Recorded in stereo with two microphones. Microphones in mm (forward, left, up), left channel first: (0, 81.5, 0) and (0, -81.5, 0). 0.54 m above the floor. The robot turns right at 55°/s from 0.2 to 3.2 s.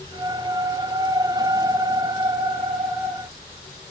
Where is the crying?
I don't hear crying.